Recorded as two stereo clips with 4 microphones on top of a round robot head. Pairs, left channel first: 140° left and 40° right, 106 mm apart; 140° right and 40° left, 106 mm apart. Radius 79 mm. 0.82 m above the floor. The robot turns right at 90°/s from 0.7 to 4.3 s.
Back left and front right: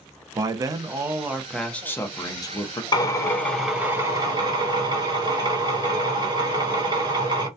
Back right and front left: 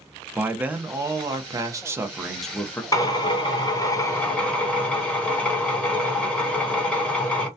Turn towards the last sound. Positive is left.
turn(degrees=-60)